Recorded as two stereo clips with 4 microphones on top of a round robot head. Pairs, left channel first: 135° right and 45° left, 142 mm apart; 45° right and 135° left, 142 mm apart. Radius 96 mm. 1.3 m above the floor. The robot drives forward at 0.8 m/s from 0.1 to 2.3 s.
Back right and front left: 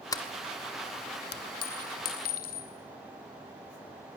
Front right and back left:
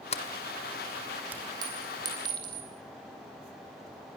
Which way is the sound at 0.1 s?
80° right.